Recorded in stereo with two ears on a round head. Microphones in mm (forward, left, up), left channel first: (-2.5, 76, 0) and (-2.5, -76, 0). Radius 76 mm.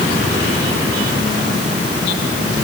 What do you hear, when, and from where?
Only background noise.